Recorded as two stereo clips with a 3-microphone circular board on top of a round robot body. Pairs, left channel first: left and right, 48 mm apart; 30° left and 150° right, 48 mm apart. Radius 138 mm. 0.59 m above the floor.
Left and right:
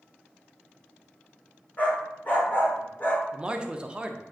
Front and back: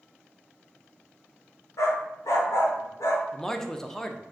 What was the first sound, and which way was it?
A dog barking, 30° left.